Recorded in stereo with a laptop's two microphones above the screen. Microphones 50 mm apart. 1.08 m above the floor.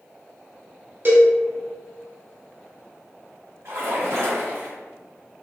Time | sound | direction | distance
1.1 | a cowbell | 40° right (ahead or behind) | 0.7 m
3.6 | a splash | 65° right (ahead or behind) | 1.8 m